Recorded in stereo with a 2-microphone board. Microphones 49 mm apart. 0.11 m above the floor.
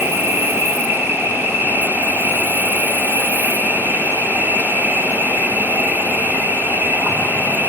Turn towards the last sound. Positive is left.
turn(degrees=-50)  # may be behind; listen again after turning